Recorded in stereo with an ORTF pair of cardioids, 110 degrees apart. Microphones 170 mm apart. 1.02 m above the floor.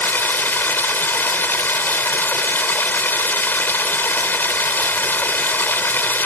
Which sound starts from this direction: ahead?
Running water, at 0.0 s.